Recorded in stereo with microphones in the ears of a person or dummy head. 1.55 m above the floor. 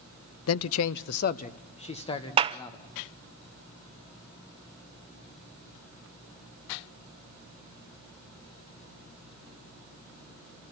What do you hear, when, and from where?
0.5 s a man speaking: 75° left (ahead or behind), 0.6 m; by 2.9 s 25° left (ahead or behind), 2 m
2.4 s a clap: 30° right (ahead or behind), 0.5 m